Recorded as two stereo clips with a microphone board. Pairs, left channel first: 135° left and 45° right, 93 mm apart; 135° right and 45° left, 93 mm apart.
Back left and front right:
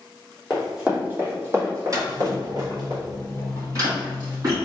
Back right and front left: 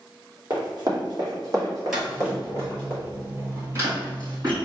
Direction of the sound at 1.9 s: 35° right.